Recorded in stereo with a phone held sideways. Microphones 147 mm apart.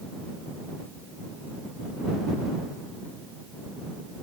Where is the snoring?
No snoring in this recording.